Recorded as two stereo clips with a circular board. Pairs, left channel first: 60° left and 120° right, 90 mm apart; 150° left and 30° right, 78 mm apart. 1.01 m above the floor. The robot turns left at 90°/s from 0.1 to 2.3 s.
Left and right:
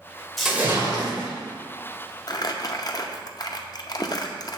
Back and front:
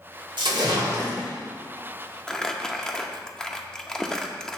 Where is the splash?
30° right, 1.9 m; by 1.3 s 115° right, 1.9 m.